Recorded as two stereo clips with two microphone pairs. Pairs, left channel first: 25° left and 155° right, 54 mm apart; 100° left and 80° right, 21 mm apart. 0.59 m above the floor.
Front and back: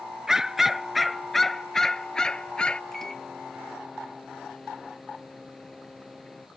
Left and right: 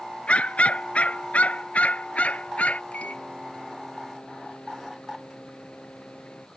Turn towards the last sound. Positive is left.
turn(degrees=105)